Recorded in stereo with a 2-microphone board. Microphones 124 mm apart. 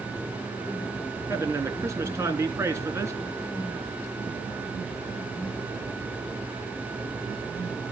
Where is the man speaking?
25° right (ahead or behind), 3 m.